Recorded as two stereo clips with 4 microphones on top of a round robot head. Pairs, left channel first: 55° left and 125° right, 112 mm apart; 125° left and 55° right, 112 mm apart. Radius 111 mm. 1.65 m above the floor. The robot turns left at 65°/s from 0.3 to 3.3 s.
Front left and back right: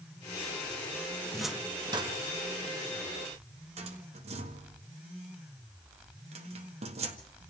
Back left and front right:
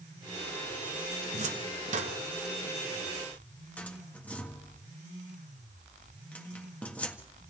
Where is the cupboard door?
25° right, 1.5 m; by 7.2 s 160° right, 1.5 m.